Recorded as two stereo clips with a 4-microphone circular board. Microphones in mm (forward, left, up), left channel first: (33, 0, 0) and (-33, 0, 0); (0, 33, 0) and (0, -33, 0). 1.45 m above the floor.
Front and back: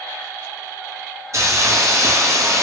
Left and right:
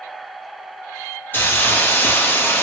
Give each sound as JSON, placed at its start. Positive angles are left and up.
{"t": 1.3, "sound": "a hiss", "azimuth_deg": 145, "distance_m": 0.7}